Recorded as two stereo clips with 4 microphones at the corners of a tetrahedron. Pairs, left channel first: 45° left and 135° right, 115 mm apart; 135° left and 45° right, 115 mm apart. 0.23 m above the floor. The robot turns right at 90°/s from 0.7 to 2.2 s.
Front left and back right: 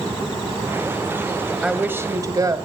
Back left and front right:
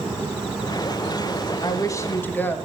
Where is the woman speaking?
140° left, 1.1 m; by 2.6 s 165° right, 1.1 m.